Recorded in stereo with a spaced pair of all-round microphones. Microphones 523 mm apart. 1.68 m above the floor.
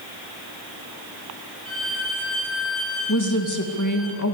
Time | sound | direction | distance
1.6 | a violin | 25° right (ahead or behind) | 8 m
3.1 | a woman speaking | 35° left (ahead or behind) | 2 m